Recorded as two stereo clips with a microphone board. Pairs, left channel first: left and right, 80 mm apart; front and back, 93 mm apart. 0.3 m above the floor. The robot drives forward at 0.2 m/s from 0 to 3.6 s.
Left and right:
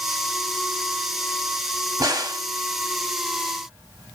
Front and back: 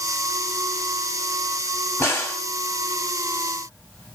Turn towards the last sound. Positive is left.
turn(degrees=-85)